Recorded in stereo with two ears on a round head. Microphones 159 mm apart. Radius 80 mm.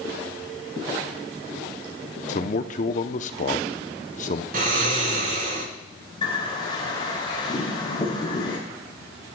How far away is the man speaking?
About 0.7 m.